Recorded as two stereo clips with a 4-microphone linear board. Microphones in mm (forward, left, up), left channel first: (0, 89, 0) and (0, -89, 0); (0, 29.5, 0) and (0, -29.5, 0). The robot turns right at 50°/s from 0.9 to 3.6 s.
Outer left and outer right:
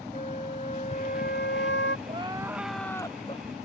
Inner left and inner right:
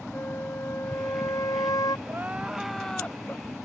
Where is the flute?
40° left; by 2.0 s 95° left.